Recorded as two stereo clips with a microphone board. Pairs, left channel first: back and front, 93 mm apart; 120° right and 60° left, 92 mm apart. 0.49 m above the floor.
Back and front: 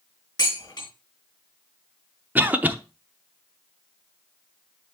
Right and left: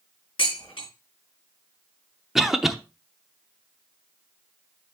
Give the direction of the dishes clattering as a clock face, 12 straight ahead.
5 o'clock.